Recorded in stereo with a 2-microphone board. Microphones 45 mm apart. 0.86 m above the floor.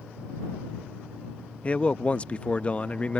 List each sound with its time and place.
1.6 s a man speaking: 30° left (ahead or behind)